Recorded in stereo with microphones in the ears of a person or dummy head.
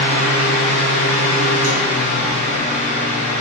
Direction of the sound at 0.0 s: 45° right (ahead or behind).